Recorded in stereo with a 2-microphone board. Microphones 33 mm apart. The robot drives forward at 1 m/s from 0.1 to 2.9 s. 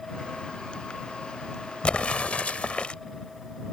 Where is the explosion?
35° left (ahead or behind).